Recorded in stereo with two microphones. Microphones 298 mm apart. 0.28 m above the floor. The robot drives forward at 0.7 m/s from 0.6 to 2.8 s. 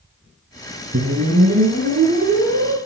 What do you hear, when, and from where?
0.9 s a whoosh: 50° right (ahead or behind), 3 m; by 2.8 s 40° right (ahead or behind), 3.5 m